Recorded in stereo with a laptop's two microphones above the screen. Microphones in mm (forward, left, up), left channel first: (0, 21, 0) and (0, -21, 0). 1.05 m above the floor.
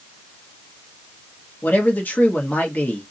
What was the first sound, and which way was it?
A man speaking, 50° left (ahead or behind).